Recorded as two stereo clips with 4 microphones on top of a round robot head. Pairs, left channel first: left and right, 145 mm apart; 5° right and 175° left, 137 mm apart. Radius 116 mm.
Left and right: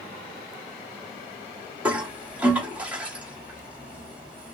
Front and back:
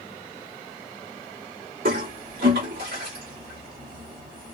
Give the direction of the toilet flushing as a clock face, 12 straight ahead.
6 o'clock.